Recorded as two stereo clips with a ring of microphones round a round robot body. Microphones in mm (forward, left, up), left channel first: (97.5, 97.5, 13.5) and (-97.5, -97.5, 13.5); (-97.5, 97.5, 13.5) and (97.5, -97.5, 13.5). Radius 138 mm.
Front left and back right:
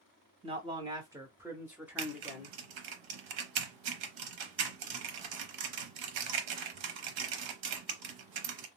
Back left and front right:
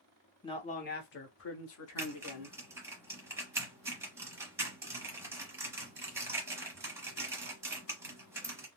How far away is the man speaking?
About 0.8 m.